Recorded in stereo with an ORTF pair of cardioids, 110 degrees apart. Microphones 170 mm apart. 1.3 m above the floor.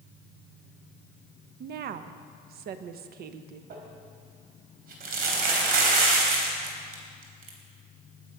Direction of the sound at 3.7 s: 65° right.